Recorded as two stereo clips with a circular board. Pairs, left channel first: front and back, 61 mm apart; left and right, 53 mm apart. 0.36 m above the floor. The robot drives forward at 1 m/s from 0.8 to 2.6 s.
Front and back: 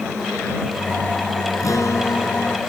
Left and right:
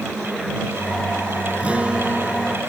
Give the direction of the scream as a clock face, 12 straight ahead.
No scream in this recording.